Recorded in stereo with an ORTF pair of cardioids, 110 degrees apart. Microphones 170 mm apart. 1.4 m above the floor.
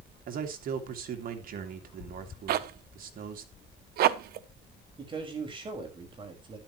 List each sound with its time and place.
0.3 s a man speaking: 55° right, 2.5 m
2.5 s a zipper: 65° right, 0.9 m
5.0 s a man speaking: 30° right, 6 m